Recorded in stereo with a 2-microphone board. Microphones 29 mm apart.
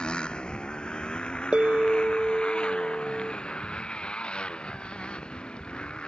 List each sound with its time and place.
0.0 s a motorcycle: 35° left (ahead or behind)
1.5 s a bell: 45° right (ahead or behind)